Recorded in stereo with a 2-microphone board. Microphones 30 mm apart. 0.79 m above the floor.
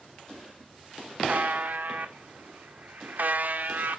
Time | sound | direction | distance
1.3 | a buzzer | 70° right (ahead or behind) | 0.9 m